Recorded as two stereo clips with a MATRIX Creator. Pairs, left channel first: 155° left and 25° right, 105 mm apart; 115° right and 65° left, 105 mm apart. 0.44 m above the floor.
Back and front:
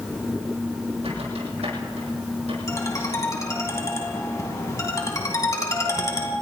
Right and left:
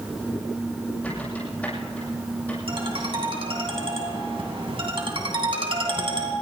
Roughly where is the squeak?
Ahead right.